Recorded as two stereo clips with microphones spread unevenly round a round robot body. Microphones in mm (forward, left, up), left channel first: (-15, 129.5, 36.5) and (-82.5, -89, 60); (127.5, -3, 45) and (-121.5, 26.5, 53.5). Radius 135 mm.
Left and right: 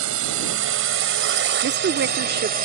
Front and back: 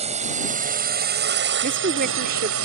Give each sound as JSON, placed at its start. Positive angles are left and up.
{"t": 0.0, "sound": "a drone", "azimuth_deg": -120}
{"t": 1.6, "sound": "a woman speaking", "azimuth_deg": -140}